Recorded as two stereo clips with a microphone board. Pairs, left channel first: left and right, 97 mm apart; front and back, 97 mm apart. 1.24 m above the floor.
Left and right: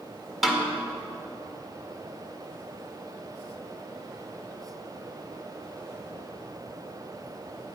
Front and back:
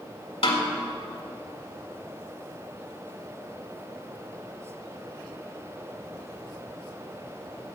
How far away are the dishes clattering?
I don't hear dishes clattering.